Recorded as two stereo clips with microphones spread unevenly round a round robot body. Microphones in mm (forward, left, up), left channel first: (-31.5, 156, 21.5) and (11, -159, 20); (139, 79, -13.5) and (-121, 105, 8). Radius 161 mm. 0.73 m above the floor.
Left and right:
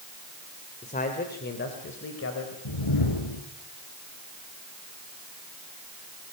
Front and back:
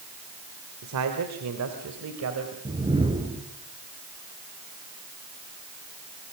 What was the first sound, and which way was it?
A man speaking, 165° left.